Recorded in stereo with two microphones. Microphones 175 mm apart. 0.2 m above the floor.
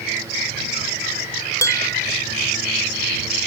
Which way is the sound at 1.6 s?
15° left (ahead or behind).